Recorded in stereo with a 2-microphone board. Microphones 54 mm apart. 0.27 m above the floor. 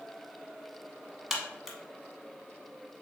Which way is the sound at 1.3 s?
5° right (ahead or behind).